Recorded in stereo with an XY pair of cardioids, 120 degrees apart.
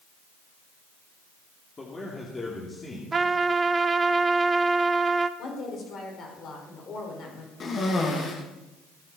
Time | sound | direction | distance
1.8 | a man speaking | 25° left | 3 m
3.1 | a trumpet | 25° right | 0.8 m
5.4 | a woman speaking | 50° left | 5.5 m
7.6 | a cough | 40° left | 2.5 m